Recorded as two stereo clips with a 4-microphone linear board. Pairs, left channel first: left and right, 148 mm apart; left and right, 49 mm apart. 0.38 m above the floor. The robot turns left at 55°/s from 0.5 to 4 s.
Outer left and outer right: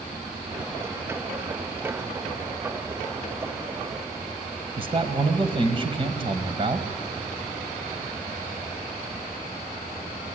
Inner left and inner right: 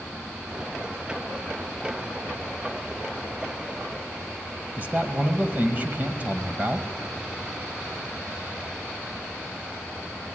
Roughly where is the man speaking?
Right.